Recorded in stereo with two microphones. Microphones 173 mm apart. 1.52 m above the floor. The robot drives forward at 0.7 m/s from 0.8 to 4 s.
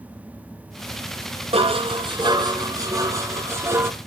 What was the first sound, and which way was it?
Dishes clattering, 35° right (ahead or behind).